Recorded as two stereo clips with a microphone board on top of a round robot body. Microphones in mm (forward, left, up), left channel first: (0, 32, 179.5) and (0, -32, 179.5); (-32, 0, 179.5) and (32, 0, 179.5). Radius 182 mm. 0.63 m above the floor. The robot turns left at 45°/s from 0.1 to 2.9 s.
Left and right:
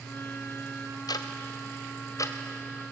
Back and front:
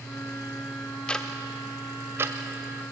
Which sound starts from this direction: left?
Ticking, at 1.1 s.